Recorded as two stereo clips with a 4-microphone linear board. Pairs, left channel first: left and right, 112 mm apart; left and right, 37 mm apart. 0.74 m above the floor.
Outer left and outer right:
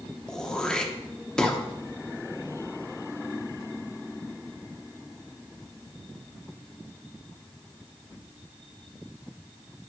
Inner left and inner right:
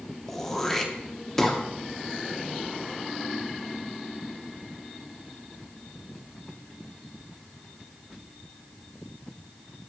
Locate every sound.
0.3 s throat clearing: 5° left (ahead or behind), 0.7 m